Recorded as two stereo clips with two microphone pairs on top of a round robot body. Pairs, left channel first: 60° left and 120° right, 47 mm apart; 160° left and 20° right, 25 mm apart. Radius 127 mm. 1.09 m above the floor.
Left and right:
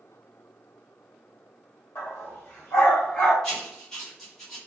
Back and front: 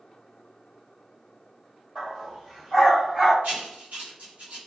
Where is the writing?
20° right, 1.1 m.